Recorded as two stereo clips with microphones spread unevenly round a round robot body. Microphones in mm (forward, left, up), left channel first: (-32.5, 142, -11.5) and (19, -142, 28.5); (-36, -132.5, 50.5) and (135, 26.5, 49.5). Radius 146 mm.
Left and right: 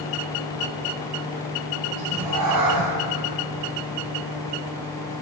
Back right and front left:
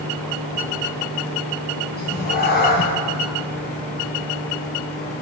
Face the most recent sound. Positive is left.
turn(degrees=-90)